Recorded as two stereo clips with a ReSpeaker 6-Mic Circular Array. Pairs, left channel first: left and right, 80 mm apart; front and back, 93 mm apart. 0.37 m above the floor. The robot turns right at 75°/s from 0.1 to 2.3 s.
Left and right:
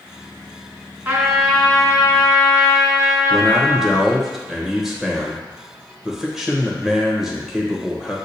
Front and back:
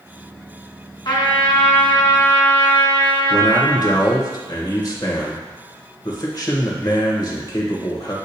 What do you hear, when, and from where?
1.1 s a trumpet: 30° right, 1.7 m; by 4.0 s 65° left, 1.7 m
3.3 s a man speaking: 5° right, 1.0 m